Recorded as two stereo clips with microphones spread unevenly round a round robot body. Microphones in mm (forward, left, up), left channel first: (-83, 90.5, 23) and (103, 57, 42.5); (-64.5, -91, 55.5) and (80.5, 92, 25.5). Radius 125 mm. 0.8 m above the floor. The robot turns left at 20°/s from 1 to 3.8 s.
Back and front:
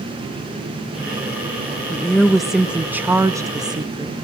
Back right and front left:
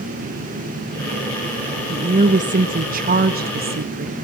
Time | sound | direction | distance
1.9 | a woman speaking | 95° left | 1.2 m